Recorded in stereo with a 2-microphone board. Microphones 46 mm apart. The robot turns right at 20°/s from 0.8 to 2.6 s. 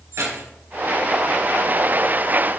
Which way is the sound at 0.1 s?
85° right.